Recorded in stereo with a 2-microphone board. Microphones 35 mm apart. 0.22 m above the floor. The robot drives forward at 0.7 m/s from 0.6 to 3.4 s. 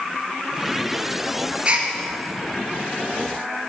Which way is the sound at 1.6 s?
35° right (ahead or behind).